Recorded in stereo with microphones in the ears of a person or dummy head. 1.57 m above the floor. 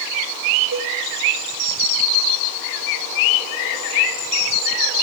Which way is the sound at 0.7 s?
45° right (ahead or behind).